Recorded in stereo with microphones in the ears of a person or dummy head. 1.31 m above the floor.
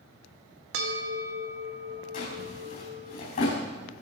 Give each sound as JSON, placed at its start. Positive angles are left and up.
{"t": 0.7, "sound": "a bell", "side_deg": -65, "distance_m": 1.9}
{"t": 2.1, "sound": "a drawer", "side_deg": 50, "distance_m": 4.0}